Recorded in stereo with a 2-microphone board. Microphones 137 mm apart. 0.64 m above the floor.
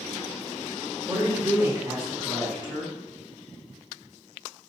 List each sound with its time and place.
1.1 s a woman speaking: 25° right (ahead or behind), 1.3 m